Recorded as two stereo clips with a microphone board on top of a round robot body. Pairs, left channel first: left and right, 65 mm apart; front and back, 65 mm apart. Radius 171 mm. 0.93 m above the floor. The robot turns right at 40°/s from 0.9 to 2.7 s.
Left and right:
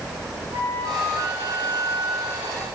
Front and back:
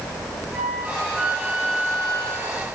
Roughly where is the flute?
Right.